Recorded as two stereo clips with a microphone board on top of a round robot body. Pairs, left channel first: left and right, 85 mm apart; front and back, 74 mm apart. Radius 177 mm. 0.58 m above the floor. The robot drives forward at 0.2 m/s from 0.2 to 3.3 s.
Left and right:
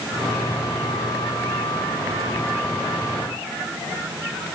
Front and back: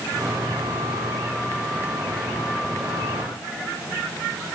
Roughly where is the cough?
I don't hear a cough.